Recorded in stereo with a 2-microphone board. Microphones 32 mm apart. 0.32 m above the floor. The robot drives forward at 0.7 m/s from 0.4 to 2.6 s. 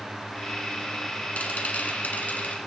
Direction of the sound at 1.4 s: 50° left (ahead or behind).